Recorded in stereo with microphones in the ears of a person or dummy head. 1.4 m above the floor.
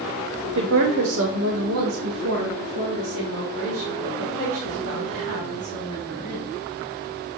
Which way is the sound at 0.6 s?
70° right (ahead or behind).